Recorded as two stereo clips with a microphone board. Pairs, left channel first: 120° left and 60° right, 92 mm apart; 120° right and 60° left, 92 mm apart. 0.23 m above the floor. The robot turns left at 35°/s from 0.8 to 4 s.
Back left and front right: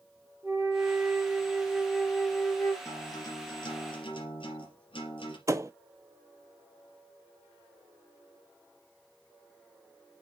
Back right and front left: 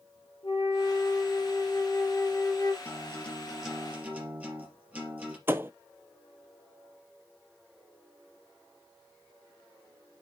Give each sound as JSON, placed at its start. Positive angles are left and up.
{"t": 0.4, "sound": "a flute", "azimuth_deg": -115, "distance_m": 3.0}
{"t": 2.9, "sound": "a guitar", "azimuth_deg": 175, "distance_m": 3.5}
{"t": 5.5, "sound": "a thud", "azimuth_deg": -5, "distance_m": 0.6}